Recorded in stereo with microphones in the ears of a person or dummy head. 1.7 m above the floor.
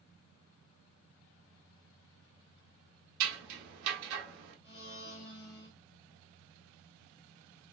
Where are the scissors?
70° right (ahead or behind), 1.0 m.